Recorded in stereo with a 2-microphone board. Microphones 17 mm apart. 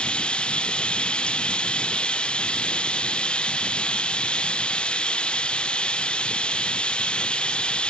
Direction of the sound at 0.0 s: 80° left.